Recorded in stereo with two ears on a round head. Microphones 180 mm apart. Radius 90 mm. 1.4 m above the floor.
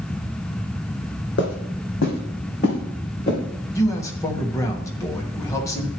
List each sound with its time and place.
1.4 s footsteps: 55° left (ahead or behind), 2.5 m; by 3.4 s 40° left (ahead or behind), 4 m
3.8 s a man speaking: 15° left (ahead or behind), 1.2 m